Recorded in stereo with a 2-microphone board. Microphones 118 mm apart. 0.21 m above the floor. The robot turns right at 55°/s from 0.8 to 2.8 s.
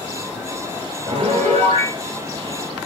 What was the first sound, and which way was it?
A piano, 125° right.